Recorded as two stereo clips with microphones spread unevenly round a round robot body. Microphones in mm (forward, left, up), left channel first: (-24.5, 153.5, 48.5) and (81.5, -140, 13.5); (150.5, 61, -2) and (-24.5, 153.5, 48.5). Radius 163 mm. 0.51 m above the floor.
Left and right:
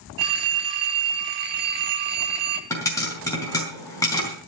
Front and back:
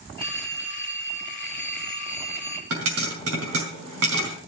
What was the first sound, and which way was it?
A phone ringing, 90° right.